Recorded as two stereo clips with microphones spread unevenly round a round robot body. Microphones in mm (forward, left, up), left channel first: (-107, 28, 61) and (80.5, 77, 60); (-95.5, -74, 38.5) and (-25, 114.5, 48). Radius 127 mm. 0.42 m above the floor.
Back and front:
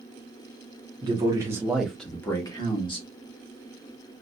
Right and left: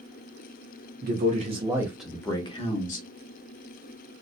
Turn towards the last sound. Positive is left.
turn(degrees=-115)